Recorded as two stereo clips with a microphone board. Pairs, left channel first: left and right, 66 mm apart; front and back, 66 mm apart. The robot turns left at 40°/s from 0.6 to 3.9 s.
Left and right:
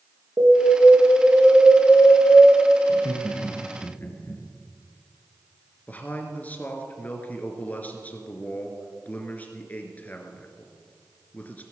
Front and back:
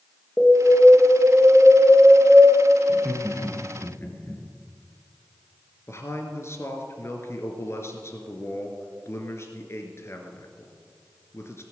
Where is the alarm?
75° right, 3 m; by 2.5 s 150° right, 3 m.